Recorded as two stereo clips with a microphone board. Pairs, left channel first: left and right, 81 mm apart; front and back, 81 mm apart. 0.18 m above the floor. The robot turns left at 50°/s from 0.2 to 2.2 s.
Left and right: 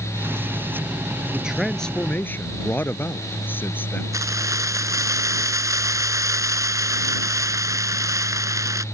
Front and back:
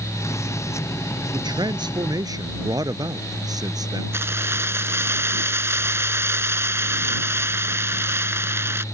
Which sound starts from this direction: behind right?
Keys jangling, at 4.1 s.